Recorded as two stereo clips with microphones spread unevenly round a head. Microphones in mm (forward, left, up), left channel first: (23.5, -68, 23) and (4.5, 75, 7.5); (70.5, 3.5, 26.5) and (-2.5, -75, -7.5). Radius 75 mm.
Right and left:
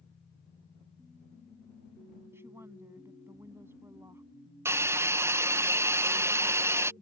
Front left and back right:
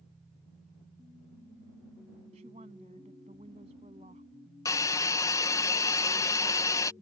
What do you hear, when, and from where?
2.3 s a woman speaking: 175° left
4.7 s a hiss: 115° left